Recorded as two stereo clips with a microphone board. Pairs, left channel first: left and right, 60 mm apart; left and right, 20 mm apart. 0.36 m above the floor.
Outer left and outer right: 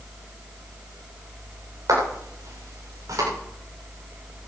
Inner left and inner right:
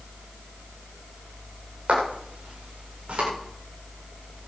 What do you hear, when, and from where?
1.9 s footsteps: 70° right (ahead or behind), 9 m